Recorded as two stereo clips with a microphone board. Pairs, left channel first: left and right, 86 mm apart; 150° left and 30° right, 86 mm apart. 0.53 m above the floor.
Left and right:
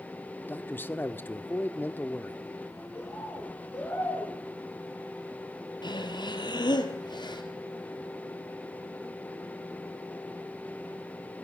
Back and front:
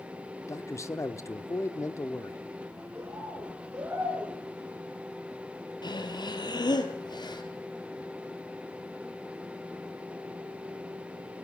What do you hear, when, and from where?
0.4 s a man speaking: 140° left, 1.2 m
3.0 s a bird: 30° left, 6.5 m
5.8 s breathing: 120° left, 2 m